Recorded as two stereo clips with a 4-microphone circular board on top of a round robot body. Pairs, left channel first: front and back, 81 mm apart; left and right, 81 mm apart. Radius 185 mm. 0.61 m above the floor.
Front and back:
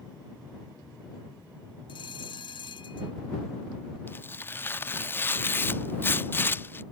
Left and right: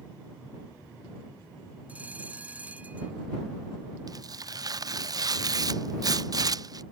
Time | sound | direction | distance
1.9 | a bell | 15° right | ?
4.1 | tearing paper | 60° right | ?